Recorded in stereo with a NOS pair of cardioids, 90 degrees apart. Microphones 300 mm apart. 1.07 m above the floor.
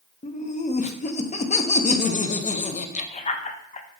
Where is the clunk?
No clunk in this recording.